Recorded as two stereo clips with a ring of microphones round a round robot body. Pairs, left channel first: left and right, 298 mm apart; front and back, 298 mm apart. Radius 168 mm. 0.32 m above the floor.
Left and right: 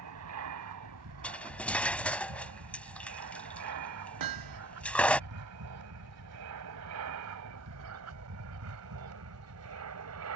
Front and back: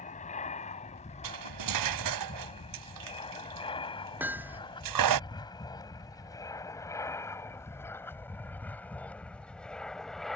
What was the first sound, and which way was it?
An aircraft, 60° right.